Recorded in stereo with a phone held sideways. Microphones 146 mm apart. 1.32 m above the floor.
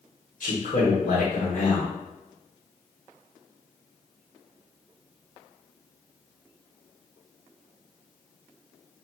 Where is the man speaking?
65° left (ahead or behind), 1.1 m.